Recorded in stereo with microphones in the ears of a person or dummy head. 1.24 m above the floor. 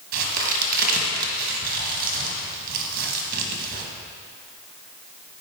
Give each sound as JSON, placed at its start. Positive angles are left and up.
{"t": 0.1, "sound": "a crack", "side_deg": -50, "distance_m": 1.6}